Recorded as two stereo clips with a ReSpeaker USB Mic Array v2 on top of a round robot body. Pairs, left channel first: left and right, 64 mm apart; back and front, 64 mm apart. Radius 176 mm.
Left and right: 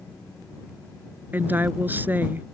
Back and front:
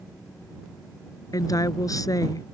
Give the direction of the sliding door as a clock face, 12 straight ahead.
I don't hear a sliding door.